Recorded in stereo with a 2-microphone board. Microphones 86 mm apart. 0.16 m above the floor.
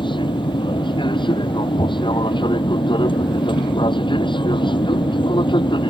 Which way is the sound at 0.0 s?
70° left (ahead or behind).